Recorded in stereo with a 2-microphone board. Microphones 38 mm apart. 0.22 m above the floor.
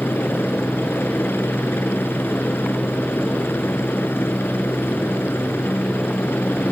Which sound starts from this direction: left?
A helicopter, at 0.0 s.